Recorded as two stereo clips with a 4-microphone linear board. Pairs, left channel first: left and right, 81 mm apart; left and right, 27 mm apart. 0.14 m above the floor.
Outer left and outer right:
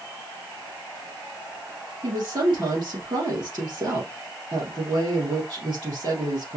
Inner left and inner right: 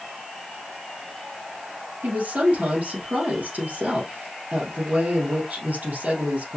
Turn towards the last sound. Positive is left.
turn(degrees=-65)  # may be behind; listen again after turning